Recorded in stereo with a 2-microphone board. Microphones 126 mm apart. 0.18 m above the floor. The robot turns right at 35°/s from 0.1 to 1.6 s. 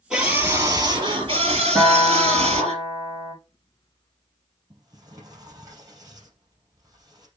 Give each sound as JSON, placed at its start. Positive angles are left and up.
{"t": 0.1, "sound": "a scream", "azimuth_deg": -175, "distance_m": 4.5}
{"t": 1.8, "sound": "a guitar", "side_deg": 0, "distance_m": 3.0}
{"t": 4.7, "sound": "a sliding door", "side_deg": -30, "distance_m": 3.5}